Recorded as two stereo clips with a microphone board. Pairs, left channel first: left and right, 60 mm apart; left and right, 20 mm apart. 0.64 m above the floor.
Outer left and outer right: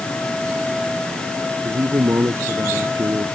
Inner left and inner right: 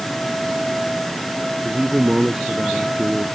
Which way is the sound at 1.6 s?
55° right (ahead or behind).